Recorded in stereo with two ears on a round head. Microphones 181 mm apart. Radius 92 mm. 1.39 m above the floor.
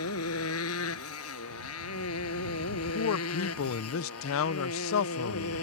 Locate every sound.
0.0 s a motorcycle: 85° left; by 5.6 s 80° left
2.7 s a man speaking: 75° left (ahead or behind)